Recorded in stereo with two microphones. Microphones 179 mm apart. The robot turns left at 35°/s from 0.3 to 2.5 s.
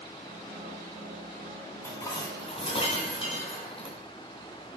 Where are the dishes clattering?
10° left (ahead or behind), 2 m; by 4.0 s 30° left (ahead or behind), 2 m.